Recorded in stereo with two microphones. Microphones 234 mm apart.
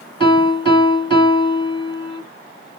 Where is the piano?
20° left (ahead or behind), 1.6 m.